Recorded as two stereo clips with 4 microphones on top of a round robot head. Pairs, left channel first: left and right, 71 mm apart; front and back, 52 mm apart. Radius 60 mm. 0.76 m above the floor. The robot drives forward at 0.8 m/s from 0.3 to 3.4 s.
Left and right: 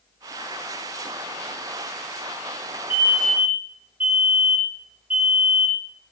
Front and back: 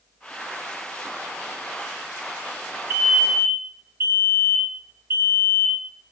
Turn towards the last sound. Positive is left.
turn(degrees=-155)